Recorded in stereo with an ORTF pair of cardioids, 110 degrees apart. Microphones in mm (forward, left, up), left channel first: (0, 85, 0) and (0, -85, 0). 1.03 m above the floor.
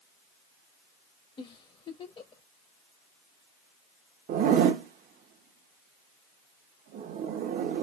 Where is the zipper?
55° right, 0.7 m.